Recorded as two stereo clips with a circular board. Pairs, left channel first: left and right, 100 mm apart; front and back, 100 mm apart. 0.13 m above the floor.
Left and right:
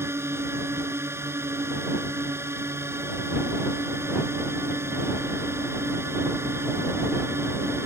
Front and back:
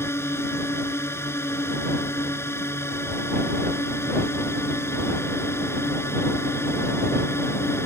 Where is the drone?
45° right.